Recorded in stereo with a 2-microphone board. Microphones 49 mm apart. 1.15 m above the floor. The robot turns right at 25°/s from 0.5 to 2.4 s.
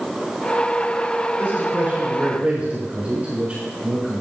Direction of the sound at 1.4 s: 50° right (ahead or behind).